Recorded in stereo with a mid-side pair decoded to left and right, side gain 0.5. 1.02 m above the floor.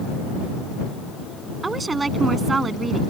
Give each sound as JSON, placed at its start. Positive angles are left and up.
{"t": 1.6, "sound": "a woman speaking", "azimuth_deg": -25}